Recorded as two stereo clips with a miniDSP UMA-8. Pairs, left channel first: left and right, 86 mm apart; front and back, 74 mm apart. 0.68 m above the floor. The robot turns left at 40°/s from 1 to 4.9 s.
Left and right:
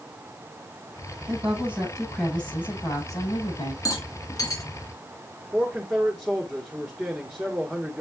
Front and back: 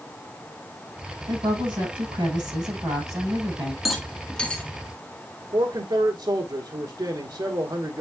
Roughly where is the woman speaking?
Behind right.